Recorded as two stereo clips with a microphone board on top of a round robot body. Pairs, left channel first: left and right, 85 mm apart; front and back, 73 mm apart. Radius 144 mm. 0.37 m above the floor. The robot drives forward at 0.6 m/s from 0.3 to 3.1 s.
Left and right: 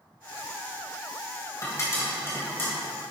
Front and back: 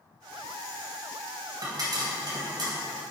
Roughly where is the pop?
Behind left.